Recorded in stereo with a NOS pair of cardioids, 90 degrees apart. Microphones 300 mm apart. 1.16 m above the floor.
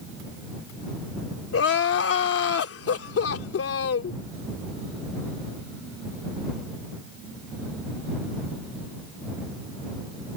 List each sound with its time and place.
1.5 s crying: 50° left